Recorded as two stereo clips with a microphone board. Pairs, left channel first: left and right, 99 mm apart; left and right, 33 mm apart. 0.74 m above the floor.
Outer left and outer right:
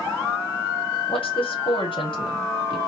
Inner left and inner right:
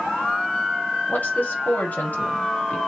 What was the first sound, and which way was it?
A woman speaking, 60° left (ahead or behind).